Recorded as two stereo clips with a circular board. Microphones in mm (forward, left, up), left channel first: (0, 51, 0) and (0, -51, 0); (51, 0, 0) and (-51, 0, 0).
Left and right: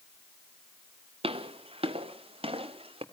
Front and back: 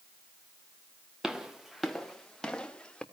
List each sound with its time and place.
1.2 s footsteps: 95° right, 1.9 m; by 3.0 s 80° right, 3 m